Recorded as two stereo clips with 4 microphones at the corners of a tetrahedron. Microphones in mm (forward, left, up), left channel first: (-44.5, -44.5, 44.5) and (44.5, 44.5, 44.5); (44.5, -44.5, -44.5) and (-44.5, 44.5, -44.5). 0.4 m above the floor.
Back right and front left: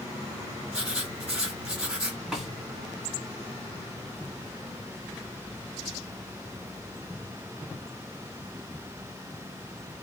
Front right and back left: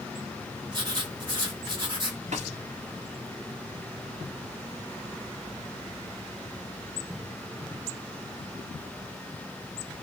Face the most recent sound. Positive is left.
turn(degrees=135)